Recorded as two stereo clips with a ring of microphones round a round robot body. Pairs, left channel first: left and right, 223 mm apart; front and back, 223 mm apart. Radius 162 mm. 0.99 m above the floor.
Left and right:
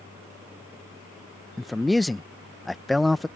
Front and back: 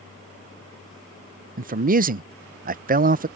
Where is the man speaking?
Straight behind.